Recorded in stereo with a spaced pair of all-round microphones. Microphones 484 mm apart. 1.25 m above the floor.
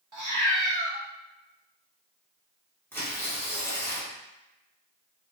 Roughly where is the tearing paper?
Centre.